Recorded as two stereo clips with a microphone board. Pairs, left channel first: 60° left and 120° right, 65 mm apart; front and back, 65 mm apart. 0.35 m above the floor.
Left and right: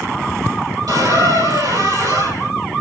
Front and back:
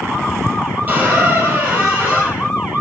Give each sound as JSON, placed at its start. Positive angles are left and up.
{"t": 0.9, "sound": "a squeak", "azimuth_deg": -115, "distance_m": 4.0}